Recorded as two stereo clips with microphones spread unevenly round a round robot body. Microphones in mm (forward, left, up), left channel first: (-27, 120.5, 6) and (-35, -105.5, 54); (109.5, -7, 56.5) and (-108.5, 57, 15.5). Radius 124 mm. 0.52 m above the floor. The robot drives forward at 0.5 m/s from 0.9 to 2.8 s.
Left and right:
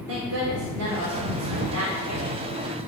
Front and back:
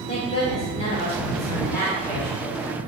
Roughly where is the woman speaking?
Right.